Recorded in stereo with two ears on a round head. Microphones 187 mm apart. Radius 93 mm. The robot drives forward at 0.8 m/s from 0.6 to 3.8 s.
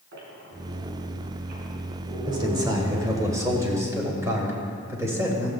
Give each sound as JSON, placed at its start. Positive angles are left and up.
{"t": 0.1, "sound": "a squeak", "side_deg": -60, "distance_m": 3.5}
{"t": 2.3, "sound": "a man speaking", "side_deg": -20, "distance_m": 2.0}